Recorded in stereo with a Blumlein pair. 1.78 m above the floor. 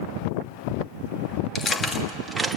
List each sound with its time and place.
1.6 s keys jangling: 25° left, 2.5 m; by 2.6 s 10° right, 2 m